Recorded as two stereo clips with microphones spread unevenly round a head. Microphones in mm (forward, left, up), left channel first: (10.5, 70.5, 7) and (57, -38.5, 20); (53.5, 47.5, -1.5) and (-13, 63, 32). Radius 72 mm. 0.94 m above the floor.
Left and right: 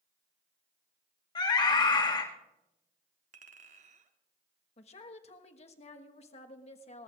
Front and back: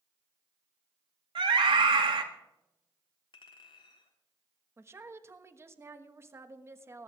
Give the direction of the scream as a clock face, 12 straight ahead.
6 o'clock.